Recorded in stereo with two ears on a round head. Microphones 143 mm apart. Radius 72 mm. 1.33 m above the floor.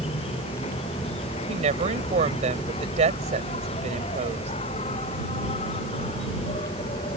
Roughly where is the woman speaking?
Right.